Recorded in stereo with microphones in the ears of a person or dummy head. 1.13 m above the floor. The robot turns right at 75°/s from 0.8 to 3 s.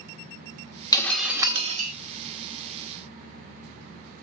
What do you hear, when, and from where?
0.9 s breaking glass: 155° left, 1.3 m; by 1.9 s 130° right, 1.3 m